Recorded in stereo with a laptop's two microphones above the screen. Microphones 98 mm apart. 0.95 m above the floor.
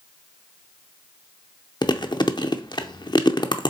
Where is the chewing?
45° left (ahead or behind), 0.6 m.